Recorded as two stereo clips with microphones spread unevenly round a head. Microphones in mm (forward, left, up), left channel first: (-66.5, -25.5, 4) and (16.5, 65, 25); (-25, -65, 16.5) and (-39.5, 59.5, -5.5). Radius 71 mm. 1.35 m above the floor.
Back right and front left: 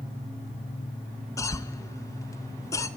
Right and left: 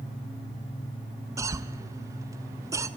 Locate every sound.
1.4 s a cough: 160° left, 1.3 m